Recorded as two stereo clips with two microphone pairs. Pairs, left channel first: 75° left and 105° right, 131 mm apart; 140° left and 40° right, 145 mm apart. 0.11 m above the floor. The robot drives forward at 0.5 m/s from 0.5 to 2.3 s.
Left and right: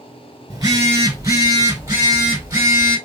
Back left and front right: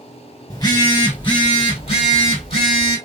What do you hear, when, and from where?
0.5 s a phone buzzing: 160° right, 1.2 m; by 3.0 s 170° right, 2.0 m